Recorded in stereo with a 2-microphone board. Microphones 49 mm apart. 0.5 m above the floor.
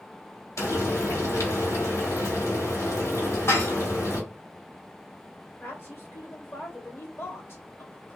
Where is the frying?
80° left, 1.8 m.